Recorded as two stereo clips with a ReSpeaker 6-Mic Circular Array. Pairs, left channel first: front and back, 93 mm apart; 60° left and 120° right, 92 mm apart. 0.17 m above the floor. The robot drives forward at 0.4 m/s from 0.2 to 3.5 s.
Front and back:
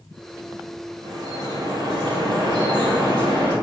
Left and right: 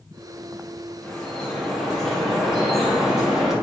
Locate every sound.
1.0 s dripping: 140° left, 3 m; by 3.5 s 150° left, 3.5 m